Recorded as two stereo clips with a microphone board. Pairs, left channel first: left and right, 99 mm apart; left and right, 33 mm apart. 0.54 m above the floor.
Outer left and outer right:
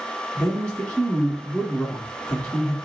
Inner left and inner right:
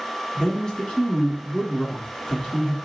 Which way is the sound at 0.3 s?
10° left (ahead or behind).